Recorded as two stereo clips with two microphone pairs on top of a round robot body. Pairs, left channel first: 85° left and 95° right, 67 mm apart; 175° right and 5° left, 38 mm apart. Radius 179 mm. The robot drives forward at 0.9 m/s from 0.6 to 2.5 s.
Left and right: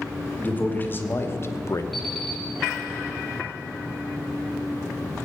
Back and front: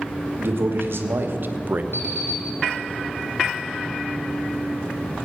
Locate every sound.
0.4 s a man speaking: 20° left, 1.8 m; by 1.8 s 45° left, 1.0 m
1.9 s an alarm clock: 170° left, 5 m